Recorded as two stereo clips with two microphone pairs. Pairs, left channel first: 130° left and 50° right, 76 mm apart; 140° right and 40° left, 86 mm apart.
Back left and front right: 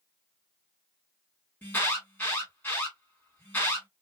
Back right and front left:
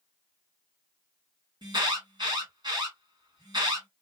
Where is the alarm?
65° left, 2.5 m.